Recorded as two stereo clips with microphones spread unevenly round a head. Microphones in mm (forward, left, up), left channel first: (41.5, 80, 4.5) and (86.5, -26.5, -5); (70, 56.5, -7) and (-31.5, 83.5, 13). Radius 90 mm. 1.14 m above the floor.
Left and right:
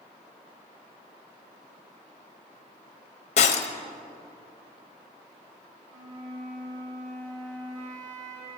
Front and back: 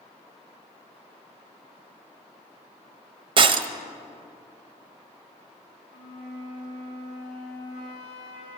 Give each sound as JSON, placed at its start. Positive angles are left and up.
{"t": 3.4, "sound": "breaking glass", "azimuth_deg": 140, "distance_m": 0.5}
{"t": 5.9, "sound": "a flute", "azimuth_deg": -25, "distance_m": 3.5}